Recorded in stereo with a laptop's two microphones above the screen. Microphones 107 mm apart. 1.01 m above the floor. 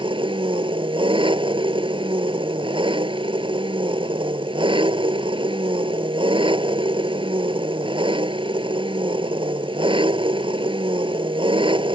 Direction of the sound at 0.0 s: 50° right (ahead or behind).